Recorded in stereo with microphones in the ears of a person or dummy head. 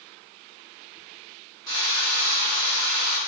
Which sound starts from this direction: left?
A drill, at 1.7 s.